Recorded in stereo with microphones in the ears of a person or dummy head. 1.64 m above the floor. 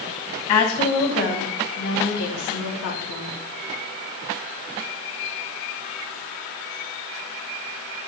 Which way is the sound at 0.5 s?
40° left (ahead or behind).